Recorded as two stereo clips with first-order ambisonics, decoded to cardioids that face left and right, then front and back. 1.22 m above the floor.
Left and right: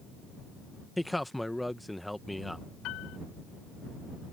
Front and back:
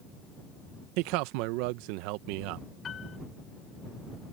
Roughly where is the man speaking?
Behind.